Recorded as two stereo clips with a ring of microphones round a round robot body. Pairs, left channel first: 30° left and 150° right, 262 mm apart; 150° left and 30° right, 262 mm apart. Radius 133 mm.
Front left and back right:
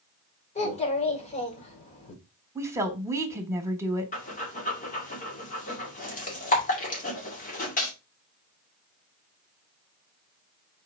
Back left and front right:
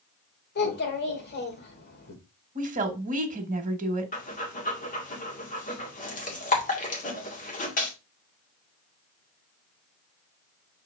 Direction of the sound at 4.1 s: 90° left.